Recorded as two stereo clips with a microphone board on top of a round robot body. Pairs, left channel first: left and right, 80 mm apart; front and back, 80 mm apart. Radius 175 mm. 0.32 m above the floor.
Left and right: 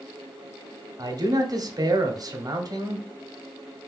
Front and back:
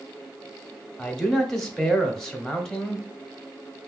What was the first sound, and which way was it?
A man speaking, 80° right.